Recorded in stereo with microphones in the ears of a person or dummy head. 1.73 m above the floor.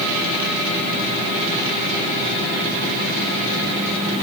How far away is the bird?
I don't hear a bird.